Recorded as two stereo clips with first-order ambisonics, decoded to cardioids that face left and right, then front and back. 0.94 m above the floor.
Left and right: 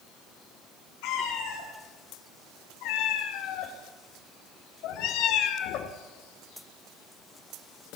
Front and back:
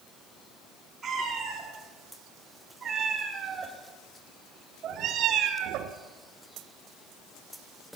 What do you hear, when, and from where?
1.0 s a cat meowing: 105° left, 4.5 m; by 6.0 s 140° left, 1.3 m